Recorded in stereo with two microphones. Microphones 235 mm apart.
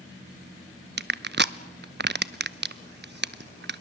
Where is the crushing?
45° right (ahead or behind), 0.6 m.